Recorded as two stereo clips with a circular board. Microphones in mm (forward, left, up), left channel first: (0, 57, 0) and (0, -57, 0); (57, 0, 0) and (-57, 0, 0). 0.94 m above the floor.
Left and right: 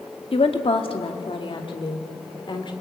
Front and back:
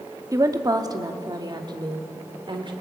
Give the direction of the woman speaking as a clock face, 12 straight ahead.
8 o'clock.